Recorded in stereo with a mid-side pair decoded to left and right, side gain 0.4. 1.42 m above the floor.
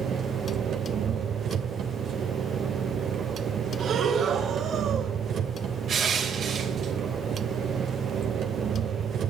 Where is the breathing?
65° right, 5 m.